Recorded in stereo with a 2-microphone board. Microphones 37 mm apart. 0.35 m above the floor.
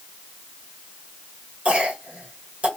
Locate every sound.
1.6 s a cough: 35° right (ahead or behind), 1.4 m